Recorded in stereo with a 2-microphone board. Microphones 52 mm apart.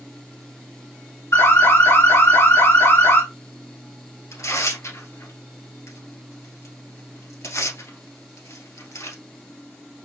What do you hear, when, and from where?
1.3 s an alarm: 65° left (ahead or behind), 2.5 m
4.3 s tearing paper: 75° left (ahead or behind), 1.7 m